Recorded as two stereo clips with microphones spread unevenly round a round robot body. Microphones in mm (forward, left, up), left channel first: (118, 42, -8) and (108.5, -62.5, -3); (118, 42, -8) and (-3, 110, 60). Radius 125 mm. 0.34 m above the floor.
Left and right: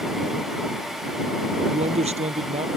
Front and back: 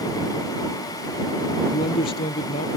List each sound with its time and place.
1.7 s a man speaking: 85° right